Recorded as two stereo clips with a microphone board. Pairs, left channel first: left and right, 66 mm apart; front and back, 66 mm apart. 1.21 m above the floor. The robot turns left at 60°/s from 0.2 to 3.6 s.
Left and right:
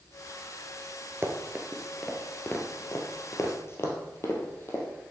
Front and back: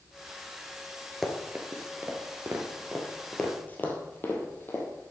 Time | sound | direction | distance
1.2 | running footsteps | 90° right | 1.4 m